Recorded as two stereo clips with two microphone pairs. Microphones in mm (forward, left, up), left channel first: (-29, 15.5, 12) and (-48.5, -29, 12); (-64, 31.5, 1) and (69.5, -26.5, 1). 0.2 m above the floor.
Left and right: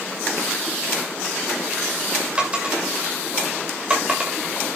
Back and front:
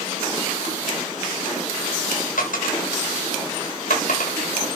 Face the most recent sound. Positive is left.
turn(degrees=175)